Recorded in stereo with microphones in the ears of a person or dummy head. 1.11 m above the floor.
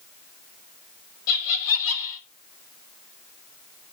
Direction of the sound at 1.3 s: 70° left (ahead or behind).